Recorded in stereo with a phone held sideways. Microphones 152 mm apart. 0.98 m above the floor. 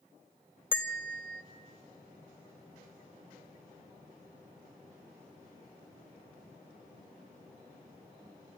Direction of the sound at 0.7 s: 15° left (ahead or behind).